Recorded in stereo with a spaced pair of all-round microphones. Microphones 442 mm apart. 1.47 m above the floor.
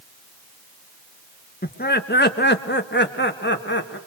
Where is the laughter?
20° left (ahead or behind), 2.0 m; by 4.0 s 25° left (ahead or behind), 3.5 m.